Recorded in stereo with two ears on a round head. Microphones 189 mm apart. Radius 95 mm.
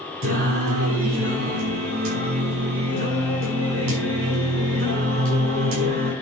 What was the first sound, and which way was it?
Singing, 70° right (ahead or behind).